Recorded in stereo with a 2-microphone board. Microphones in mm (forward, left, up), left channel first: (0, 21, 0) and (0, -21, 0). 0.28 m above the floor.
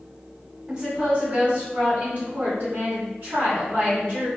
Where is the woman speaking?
25° right (ahead or behind), 1.5 m; by 4.3 s 55° right (ahead or behind), 1.7 m.